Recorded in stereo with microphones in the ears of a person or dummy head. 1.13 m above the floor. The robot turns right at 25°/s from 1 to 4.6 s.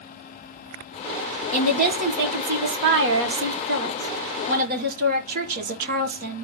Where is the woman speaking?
135° right, 1.1 m; by 6.5 s 60° right, 1.1 m.